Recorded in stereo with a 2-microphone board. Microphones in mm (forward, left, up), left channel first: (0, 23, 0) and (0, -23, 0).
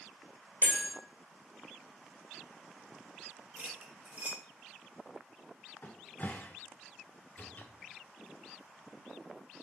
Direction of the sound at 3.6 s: 35° right (ahead or behind).